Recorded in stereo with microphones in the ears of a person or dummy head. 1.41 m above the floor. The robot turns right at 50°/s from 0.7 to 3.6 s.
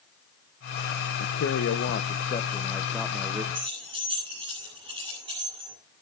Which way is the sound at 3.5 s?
25° right (ahead or behind).